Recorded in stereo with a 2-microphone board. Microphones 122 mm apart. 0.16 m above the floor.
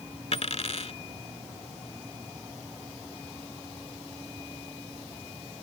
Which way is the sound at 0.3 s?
55° left (ahead or behind).